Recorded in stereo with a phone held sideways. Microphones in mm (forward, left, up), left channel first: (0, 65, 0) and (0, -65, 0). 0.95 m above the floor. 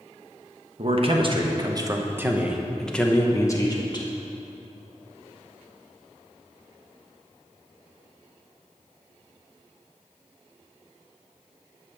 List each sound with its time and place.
0.8 s a man speaking: 50° right (ahead or behind), 1.3 m; by 4.1 s 35° left (ahead or behind), 1.2 m